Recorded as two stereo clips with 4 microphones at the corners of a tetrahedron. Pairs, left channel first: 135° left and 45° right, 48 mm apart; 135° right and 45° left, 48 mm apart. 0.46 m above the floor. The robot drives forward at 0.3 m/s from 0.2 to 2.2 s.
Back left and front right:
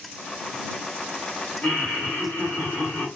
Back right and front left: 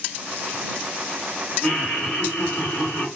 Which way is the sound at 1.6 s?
150° left.